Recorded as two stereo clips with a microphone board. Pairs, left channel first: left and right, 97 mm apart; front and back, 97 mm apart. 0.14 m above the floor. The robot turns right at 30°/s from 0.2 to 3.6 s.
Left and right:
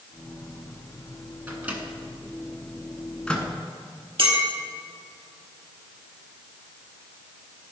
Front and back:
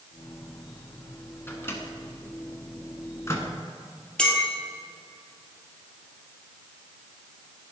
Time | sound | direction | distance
1.5 | a microwave | 40° right | 1.4 m
4.2 | a clink | 80° right | 2 m